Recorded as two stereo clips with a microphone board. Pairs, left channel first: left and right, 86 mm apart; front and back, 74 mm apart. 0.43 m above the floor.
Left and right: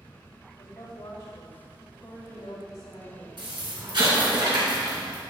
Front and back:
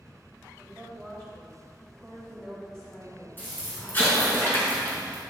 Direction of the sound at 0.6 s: 75° left.